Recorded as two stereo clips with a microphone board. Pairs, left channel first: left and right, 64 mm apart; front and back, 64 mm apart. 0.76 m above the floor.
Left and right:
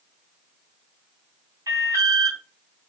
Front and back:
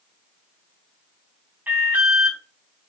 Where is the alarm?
115° right, 3.5 m.